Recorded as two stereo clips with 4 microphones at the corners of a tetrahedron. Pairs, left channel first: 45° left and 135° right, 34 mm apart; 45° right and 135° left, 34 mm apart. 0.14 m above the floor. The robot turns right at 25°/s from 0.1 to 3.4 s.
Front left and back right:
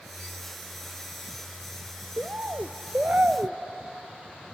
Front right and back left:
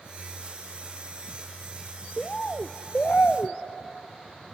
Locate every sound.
2.2 s a bird: 110° right, 0.8 m; by 3.6 s 80° right, 0.8 m